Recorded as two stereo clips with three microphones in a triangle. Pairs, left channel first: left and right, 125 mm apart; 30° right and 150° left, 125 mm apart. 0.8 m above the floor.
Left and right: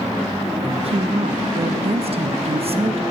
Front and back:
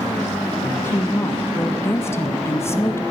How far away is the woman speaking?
About 0.7 m.